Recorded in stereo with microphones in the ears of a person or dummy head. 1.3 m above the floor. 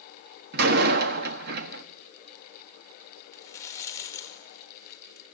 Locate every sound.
0.5 s a door slam: 60° right (ahead or behind), 1.1 m
3.3 s a rattle: 10° left (ahead or behind), 1.2 m